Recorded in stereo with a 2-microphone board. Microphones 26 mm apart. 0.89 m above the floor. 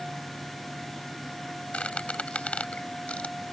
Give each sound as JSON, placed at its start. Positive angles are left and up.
{"t": 1.7, "sound": "a squeak", "side_deg": 55}